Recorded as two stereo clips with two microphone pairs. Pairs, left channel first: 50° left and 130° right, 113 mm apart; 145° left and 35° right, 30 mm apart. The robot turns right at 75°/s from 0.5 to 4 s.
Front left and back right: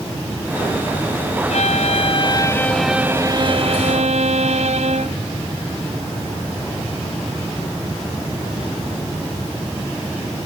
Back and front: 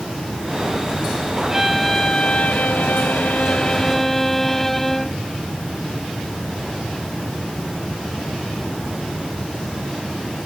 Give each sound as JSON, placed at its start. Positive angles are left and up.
{"t": 1.5, "sound": "a violin", "azimuth_deg": 40}